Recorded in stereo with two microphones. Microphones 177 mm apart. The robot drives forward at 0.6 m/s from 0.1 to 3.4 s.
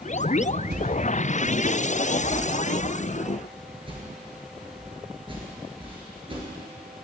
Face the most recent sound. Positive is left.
turn(degrees=-30)  # may be behind; listen again after turning